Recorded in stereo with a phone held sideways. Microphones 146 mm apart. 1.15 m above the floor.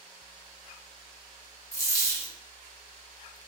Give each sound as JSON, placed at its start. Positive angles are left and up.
{"t": 1.7, "sound": "a dropped coin", "side_deg": 20, "distance_m": 0.7}